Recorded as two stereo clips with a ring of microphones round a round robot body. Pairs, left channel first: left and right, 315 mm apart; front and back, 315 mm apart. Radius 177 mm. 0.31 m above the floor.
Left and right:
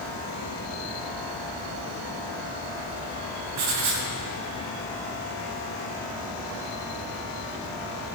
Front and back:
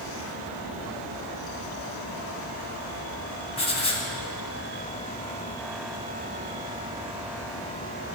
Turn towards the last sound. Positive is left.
turn(degrees=-70)